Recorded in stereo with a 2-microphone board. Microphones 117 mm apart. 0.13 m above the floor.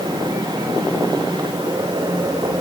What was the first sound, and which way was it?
Only background noise.